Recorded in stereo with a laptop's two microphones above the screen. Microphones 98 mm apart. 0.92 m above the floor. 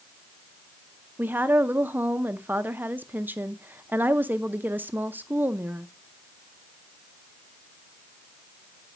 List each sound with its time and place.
1.2 s a woman speaking: 20° right (ahead or behind), 0.6 m